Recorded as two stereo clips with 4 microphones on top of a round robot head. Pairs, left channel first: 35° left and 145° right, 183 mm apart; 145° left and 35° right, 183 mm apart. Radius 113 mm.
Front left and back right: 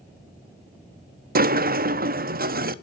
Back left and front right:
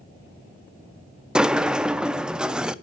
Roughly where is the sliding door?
Behind right.